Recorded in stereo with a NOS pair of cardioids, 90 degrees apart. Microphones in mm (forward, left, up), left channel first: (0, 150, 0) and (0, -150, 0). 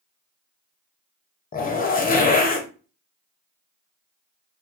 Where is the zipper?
30° left, 0.8 m.